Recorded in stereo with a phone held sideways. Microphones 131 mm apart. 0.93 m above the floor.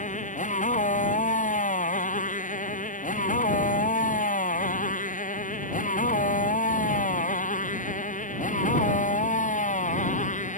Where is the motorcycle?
70° left (ahead or behind).